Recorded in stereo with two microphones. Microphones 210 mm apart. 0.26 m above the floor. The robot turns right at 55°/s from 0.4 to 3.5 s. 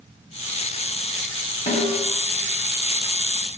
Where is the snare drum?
35° left (ahead or behind), 2.0 m; by 2.0 s 40° left (ahead or behind), 2.0 m.